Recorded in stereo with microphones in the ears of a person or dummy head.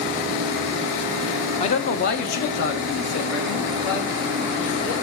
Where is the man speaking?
30° left (ahead or behind), 1.0 m; by 4.9 s 65° left (ahead or behind), 4 m.